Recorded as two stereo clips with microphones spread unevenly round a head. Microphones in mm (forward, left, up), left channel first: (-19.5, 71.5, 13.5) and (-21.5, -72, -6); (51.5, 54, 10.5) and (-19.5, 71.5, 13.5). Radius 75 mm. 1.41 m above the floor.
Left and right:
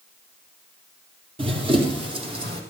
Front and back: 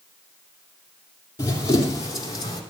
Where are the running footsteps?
35° right, 2 m; by 2.6 s 30° right, 3 m.